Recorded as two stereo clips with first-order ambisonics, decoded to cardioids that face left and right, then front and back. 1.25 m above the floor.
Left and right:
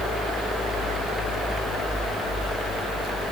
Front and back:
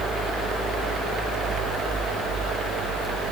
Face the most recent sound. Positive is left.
No sound to turn to.